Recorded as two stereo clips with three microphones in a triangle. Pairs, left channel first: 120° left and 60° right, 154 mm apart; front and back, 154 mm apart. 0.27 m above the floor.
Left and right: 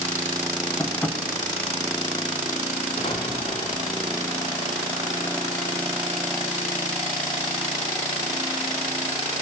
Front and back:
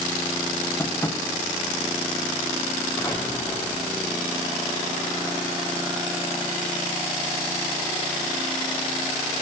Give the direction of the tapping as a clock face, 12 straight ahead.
10 o'clock.